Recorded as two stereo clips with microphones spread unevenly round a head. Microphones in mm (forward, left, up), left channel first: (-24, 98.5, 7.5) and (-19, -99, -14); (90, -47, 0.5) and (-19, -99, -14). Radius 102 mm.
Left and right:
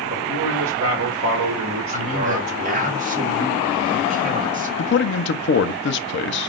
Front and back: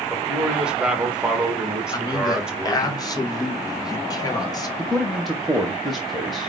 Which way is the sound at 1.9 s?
35° right.